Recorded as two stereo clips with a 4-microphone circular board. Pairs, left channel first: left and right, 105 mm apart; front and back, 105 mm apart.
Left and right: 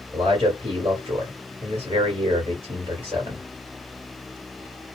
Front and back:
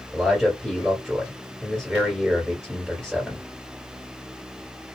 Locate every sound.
0.1 s a man speaking: 95° right, 2 m